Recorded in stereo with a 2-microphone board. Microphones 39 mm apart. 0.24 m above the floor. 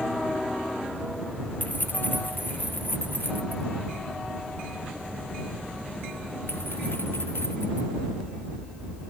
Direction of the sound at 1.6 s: 50° left (ahead or behind).